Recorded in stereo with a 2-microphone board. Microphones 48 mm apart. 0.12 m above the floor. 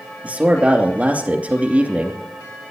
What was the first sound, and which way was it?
A man speaking, 30° right (ahead or behind).